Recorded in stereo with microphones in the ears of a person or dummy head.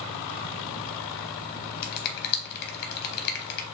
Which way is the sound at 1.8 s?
55° left (ahead or behind).